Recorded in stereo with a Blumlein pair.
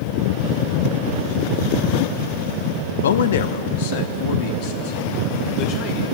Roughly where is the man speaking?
Left.